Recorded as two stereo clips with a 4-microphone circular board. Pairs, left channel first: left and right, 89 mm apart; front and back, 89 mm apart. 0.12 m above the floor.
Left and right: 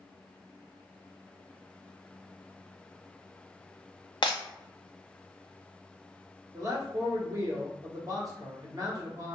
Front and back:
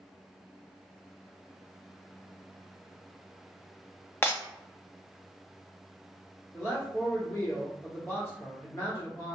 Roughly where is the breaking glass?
Ahead left.